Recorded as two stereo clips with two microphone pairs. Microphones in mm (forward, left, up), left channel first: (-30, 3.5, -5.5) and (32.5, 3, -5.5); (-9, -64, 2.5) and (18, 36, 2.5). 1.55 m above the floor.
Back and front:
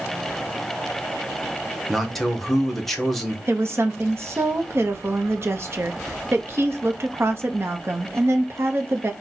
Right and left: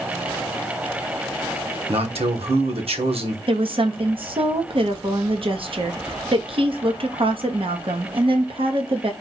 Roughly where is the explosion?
I don't hear an explosion.